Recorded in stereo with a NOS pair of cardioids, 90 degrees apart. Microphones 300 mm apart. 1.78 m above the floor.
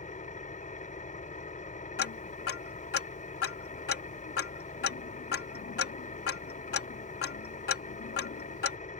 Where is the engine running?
25° left.